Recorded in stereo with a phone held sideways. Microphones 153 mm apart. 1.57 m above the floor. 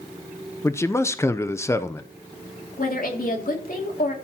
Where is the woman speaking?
70° left (ahead or behind), 3 m.